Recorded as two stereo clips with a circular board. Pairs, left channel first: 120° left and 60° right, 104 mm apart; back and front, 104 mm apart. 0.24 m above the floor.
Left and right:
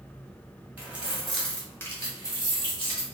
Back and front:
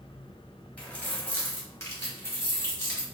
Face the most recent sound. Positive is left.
turn(degrees=125)